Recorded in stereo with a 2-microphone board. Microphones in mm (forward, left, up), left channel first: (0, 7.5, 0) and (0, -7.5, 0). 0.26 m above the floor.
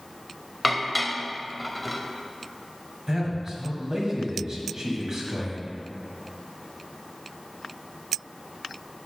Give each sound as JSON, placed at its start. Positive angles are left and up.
{"t": 0.6, "sound": "dishes clattering", "side_deg": -5, "distance_m": 0.6}
{"t": 3.1, "sound": "a man speaking", "side_deg": -40, "distance_m": 1.6}